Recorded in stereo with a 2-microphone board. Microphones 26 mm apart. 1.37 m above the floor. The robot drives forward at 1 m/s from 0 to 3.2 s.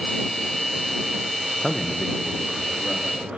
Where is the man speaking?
15° left (ahead or behind), 0.7 m; by 3.4 s 5° left (ahead or behind), 2 m.